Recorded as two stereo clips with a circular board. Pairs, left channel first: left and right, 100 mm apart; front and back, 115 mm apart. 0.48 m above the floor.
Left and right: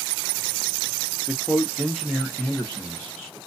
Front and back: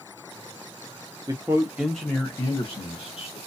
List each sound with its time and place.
1.3 s a man speaking: 170° right, 0.8 m; by 3.4 s 5° left, 1.2 m